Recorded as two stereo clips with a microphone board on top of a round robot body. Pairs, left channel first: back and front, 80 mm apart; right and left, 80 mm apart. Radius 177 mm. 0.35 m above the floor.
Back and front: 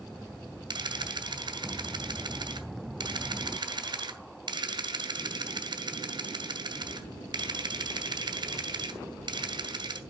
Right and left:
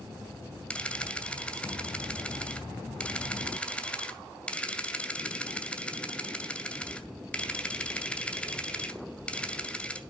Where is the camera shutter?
15° right, 1.8 m.